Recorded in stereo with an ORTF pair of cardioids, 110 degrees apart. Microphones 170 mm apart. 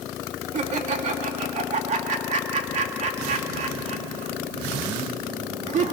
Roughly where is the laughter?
Ahead right.